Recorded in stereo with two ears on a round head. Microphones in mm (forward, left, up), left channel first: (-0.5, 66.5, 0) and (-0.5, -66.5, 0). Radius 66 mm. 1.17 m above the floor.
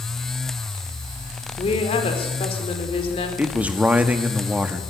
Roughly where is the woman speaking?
Left.